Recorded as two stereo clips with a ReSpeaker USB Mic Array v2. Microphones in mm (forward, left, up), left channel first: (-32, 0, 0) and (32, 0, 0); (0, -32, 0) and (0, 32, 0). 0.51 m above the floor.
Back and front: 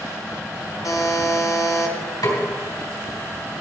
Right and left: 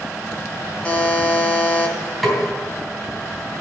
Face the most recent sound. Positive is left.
turn(degrees=180)